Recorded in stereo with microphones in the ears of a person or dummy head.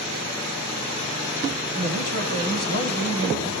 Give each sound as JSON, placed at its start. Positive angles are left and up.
{"t": 1.8, "sound": "a man speaking", "side_deg": 50, "distance_m": 3.0}